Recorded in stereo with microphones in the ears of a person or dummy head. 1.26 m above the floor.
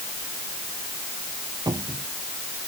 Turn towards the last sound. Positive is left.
turn(degrees=-15)  # may be behind; listen again after turning